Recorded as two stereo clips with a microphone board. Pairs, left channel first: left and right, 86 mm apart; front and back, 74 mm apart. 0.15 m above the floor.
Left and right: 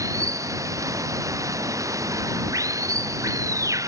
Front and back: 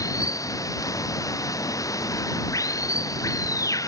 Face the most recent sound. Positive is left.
turn(degrees=-40)